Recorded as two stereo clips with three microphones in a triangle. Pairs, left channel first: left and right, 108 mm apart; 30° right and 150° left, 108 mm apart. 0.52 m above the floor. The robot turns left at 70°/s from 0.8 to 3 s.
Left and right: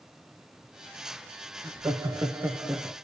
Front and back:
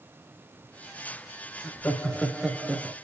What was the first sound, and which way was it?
Laughter, 70° right.